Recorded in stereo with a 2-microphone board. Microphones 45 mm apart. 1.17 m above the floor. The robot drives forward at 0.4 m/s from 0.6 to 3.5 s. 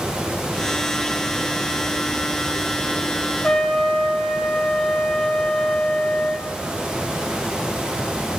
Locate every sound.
3.4 s a trumpet: 15° left (ahead or behind), 0.8 m